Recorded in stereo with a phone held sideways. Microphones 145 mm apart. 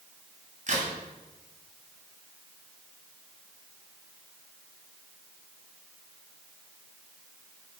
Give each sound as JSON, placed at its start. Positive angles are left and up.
{"t": 0.7, "sound": "a crack", "side_deg": -60, "distance_m": 3.0}